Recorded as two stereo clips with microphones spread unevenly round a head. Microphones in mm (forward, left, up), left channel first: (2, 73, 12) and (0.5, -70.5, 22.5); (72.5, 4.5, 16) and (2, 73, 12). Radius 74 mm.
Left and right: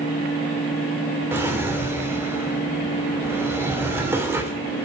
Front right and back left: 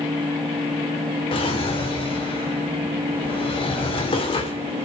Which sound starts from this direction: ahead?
A drawer, at 1.3 s.